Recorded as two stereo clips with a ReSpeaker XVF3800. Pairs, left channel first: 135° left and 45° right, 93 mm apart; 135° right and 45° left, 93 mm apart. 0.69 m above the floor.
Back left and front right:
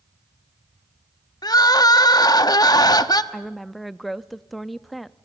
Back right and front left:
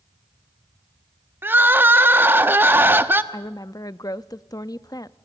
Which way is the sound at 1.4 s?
105° left.